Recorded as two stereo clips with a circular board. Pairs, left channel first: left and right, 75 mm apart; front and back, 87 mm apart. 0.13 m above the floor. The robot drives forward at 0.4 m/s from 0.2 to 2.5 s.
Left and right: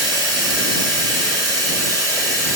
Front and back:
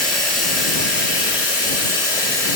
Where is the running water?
80° right, 1.0 m; by 2.6 s 130° right, 1.3 m.